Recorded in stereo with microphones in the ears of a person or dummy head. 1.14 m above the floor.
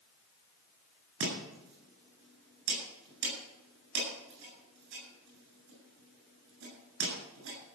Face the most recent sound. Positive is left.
turn(degrees=-70)  # may be behind; listen again after turning